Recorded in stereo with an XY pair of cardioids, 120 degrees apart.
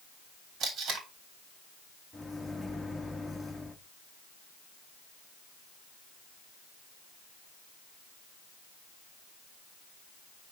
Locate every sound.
0.6 s tape being pulled: 60° right, 2.5 m
2.1 s a microwave: 10° left, 1.0 m